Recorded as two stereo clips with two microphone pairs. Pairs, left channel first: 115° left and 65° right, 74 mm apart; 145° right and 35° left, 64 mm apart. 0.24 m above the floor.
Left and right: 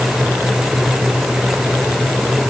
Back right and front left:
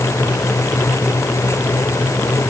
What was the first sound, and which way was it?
Only background noise.